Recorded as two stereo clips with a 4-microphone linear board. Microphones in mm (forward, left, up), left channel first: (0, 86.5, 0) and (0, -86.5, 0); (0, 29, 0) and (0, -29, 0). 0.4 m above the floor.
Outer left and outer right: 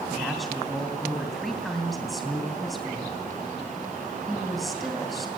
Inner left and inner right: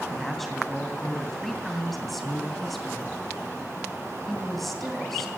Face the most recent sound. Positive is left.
turn(degrees=0)  # may be behind; listen again after turning